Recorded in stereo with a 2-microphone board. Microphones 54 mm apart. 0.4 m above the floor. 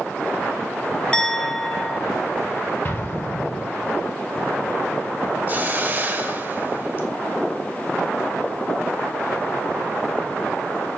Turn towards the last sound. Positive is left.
turn(degrees=-35)  # may be behind; listen again after turning